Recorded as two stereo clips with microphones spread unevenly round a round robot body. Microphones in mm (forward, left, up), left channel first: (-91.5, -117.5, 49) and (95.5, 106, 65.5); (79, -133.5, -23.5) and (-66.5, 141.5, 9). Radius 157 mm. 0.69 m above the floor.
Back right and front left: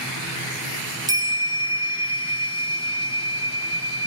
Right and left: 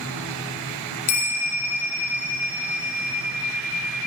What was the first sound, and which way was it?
A bell, 25° right.